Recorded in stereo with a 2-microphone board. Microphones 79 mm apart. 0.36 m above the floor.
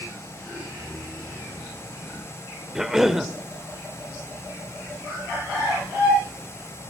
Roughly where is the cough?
Centre.